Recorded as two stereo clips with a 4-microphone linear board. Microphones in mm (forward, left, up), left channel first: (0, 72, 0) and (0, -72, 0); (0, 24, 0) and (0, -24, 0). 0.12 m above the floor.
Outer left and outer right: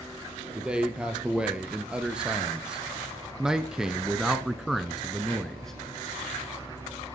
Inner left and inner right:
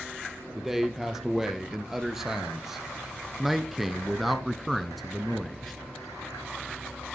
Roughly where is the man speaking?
Centre.